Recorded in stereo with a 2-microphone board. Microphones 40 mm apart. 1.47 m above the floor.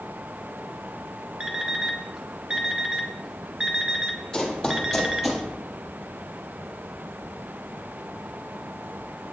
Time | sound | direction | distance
1.4 | an alarm clock | 20° right (ahead or behind) | 1.0 m
4.3 | running footsteps | 15° left (ahead or behind) | 2.5 m